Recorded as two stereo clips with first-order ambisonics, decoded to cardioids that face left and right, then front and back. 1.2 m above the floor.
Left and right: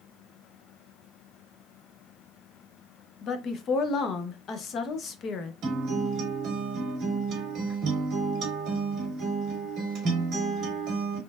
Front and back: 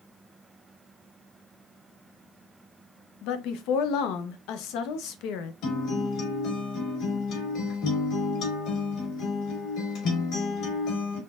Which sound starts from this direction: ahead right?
A guitar, at 5.6 s.